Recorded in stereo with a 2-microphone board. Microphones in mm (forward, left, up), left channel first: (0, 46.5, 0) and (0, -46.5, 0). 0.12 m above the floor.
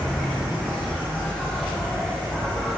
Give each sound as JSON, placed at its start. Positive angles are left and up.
{"t": 0.0, "sound": "an insect", "side_deg": -5, "distance_m": 8.5}